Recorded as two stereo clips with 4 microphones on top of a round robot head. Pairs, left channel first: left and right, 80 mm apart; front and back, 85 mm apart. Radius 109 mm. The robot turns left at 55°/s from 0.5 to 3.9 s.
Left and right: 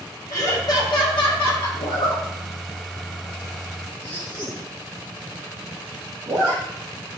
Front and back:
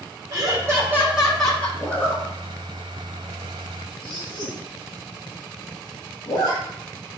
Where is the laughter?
135° left, 5.5 m; by 1.7 s 70° left, 5.5 m.